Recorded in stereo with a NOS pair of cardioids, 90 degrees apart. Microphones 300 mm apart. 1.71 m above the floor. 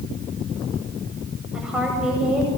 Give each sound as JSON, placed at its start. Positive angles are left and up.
{"t": 1.5, "sound": "a woman speaking", "azimuth_deg": -5, "distance_m": 9.0}